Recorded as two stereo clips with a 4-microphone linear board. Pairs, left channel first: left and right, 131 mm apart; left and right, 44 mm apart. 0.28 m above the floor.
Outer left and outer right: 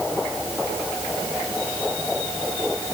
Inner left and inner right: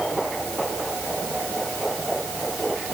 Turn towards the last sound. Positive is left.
No sound to turn to.